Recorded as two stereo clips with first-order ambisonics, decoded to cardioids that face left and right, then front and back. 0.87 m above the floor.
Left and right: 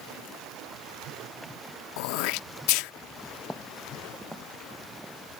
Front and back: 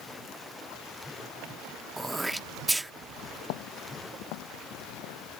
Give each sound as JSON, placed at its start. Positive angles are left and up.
{"t": 2.0, "sound": "throat clearing", "azimuth_deg": 100}
{"t": 3.4, "sound": "footsteps", "azimuth_deg": 5}